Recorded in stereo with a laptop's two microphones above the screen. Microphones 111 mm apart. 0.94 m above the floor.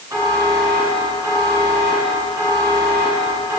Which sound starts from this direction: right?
A buzzer, at 0.1 s.